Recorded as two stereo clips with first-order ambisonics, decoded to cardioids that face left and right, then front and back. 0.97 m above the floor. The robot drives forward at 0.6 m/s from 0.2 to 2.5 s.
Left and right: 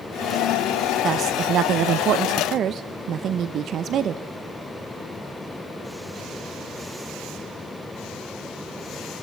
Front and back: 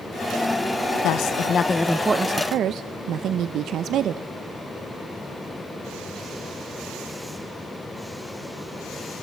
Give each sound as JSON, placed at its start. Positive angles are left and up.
{"t": 1.0, "sound": "a woman speaking", "azimuth_deg": -30, "distance_m": 0.7}